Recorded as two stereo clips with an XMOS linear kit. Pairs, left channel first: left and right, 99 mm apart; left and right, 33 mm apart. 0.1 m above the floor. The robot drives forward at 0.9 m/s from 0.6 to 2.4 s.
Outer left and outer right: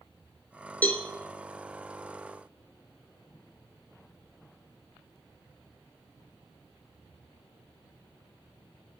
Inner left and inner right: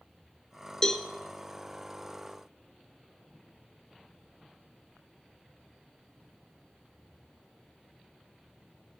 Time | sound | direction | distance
0.8 | a cowbell | 15° left (ahead or behind) | 1.4 m